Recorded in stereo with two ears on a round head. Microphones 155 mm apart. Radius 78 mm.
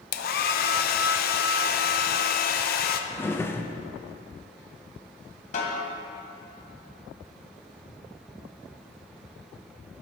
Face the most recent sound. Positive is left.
turn(degrees=45)  # may be behind; listen again after turning